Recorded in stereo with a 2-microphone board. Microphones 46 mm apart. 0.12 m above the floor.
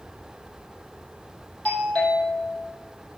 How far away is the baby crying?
I don't hear a baby crying.